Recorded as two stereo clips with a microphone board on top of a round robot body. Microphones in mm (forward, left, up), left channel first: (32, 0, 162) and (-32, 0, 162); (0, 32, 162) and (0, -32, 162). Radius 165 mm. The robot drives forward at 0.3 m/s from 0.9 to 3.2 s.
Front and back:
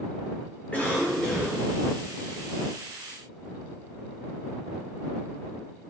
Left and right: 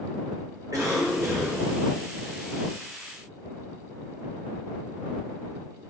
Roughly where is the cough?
Ahead right.